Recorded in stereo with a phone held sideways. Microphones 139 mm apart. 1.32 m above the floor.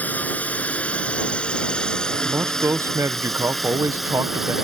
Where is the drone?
10° left (ahead or behind); by 4.6 s 5° right (ahead or behind).